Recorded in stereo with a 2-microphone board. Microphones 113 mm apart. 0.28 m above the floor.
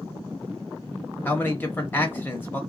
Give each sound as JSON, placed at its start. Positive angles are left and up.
{"t": 1.2, "sound": "a man speaking", "side_deg": 20, "distance_m": 0.9}